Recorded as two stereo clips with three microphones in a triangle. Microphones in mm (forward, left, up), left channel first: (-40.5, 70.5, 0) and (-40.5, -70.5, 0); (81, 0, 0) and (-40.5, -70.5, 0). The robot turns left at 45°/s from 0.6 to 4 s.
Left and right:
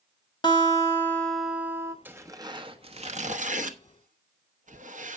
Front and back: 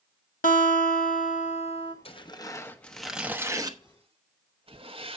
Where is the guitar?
35° left, 1.2 m; by 1.9 s 25° right, 1.2 m.